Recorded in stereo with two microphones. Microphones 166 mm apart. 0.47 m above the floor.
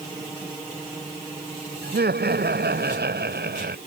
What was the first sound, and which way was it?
Laughter, 80° right.